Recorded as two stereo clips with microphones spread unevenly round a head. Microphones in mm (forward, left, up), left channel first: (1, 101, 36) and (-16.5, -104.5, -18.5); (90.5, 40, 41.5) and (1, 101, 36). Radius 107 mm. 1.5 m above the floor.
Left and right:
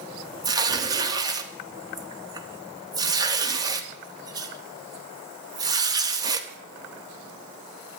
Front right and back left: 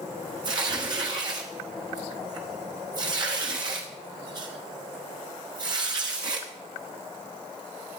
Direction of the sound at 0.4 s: Straight behind.